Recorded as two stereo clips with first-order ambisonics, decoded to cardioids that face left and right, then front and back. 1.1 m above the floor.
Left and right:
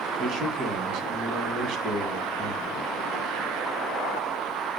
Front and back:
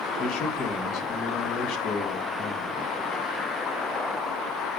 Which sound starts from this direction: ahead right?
A man speaking, at 0.2 s.